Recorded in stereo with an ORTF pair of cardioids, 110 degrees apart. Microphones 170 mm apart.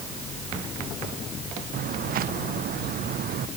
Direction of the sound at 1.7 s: 60° right.